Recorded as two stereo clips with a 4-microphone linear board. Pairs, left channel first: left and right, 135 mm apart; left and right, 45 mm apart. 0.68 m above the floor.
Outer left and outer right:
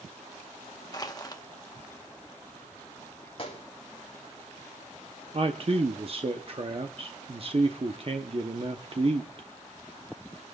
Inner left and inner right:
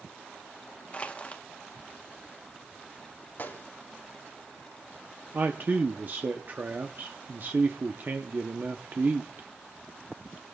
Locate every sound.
0.9 s crushing: 30° left (ahead or behind), 1.2 m
3.4 s a gunshot: 45° left (ahead or behind), 3.5 m
5.3 s a man speaking: 45° right (ahead or behind), 0.9 m